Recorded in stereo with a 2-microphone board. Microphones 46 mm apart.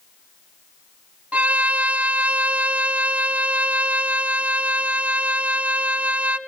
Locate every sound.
1.3 s a violin: 30° right (ahead or behind), 1.0 m